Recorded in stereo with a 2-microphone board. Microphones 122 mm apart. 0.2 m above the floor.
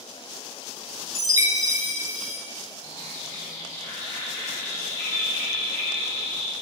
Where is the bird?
30° left (ahead or behind), 1.6 m.